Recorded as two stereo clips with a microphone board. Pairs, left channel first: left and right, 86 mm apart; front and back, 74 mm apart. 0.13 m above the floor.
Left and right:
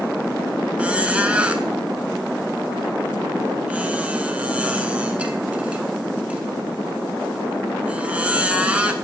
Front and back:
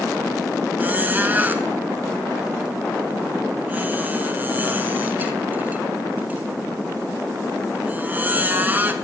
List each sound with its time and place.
0.8 s a squeak: 150° right, 0.7 m